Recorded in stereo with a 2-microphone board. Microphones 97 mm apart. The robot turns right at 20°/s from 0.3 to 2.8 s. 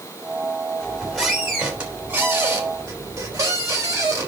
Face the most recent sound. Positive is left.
turn(degrees=-150)